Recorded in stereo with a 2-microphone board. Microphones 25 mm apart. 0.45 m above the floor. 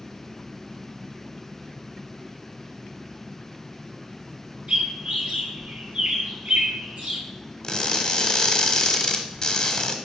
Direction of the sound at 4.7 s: 75° right (ahead or behind).